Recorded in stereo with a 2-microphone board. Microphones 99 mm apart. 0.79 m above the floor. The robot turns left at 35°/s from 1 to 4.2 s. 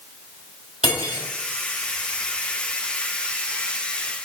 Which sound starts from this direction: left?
Cutlery clinking, at 0.8 s.